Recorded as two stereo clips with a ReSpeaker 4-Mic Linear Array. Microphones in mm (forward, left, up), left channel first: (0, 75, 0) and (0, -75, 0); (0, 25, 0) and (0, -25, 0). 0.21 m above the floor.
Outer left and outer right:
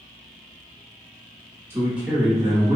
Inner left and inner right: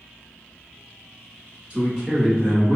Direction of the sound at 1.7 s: 15° right (ahead or behind).